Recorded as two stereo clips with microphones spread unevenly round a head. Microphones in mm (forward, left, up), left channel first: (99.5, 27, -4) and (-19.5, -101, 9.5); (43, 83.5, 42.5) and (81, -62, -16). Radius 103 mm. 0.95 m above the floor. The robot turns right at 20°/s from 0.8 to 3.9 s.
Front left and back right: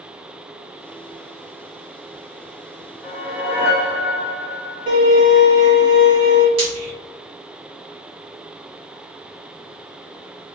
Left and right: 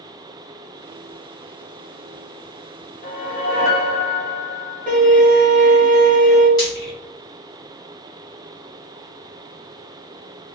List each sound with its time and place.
3.0 s a whoosh: 130° left, 0.9 m; by 5.0 s 145° left, 0.9 m
4.9 s a violin: straight behind, 1.6 m
6.6 s frying: 165° left, 1.4 m